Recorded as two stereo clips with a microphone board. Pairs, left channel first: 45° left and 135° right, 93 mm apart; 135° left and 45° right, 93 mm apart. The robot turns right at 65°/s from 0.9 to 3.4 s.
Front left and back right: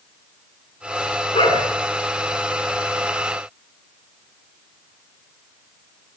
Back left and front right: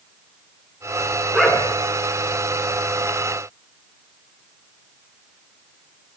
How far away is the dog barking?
About 5.5 m.